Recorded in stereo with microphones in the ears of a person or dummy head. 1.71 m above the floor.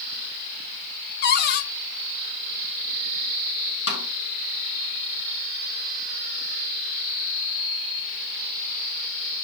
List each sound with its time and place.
1.2 s a cupboard door: 50° left (ahead or behind), 0.9 m
3.9 s a snare drum: 65° left (ahead or behind), 5 m